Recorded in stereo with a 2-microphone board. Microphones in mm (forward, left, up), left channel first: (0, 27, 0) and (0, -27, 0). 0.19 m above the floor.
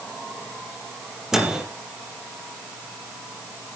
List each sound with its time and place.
1.3 s a microwave: 10° right (ahead or behind), 4 m